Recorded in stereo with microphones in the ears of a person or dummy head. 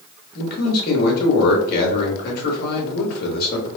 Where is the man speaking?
55° left (ahead or behind), 1.6 m.